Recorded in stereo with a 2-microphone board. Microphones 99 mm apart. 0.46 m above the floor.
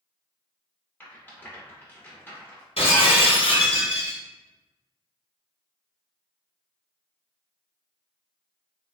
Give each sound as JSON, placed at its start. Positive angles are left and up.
{"t": 1.0, "sound": "a rattle", "side_deg": 20, "distance_m": 1.4}
{"t": 2.8, "sound": "breaking glass", "side_deg": 80, "distance_m": 1.8}